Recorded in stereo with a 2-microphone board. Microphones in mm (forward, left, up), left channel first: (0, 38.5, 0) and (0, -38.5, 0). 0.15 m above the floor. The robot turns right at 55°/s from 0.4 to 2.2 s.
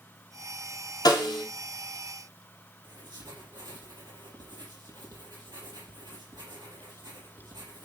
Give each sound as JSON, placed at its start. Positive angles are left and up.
{"t": 1.1, "sound": "a snare drum", "side_deg": 60, "distance_m": 3.0}
{"t": 2.8, "sound": "writing", "side_deg": -70, "distance_m": 4.5}